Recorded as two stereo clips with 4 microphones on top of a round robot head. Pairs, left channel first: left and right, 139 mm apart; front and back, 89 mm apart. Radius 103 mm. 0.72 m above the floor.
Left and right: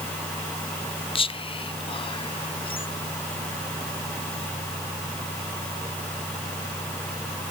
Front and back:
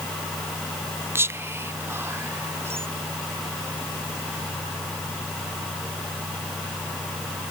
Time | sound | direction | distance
1.1 | whispering | 125° left | 0.7 m